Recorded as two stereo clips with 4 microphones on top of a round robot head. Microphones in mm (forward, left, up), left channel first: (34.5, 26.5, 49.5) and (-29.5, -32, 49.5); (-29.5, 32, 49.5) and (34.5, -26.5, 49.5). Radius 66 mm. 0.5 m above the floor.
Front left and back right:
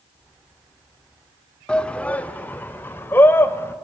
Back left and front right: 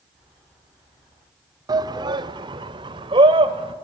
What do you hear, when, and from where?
1.7 s a shout: 35° right, 1.3 m; by 3.8 s 20° right, 3 m